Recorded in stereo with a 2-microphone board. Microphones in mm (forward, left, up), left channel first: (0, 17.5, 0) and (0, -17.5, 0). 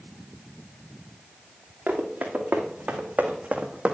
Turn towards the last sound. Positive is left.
turn(degrees=-30)  # may be behind; listen again after turning